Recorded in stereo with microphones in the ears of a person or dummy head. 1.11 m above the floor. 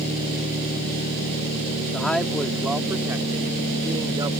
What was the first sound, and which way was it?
A man speaking, 5° left (ahead or behind).